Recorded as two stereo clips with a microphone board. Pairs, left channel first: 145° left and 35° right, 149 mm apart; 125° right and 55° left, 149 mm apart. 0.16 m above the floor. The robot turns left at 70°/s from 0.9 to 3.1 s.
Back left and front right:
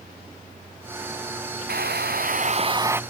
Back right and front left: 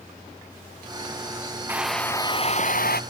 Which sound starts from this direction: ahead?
A hair dryer, at 1.7 s.